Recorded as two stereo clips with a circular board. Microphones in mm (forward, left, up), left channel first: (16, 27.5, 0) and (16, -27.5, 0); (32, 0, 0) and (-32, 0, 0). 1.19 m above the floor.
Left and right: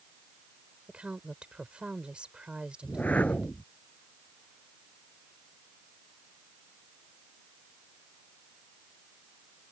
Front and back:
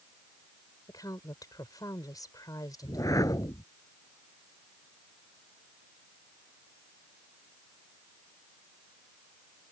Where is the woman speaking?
20° right.